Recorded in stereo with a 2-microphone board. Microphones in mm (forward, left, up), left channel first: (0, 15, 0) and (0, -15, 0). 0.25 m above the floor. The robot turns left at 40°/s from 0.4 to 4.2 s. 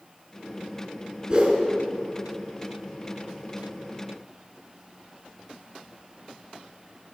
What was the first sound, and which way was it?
A whoosh, 30° right (ahead or behind).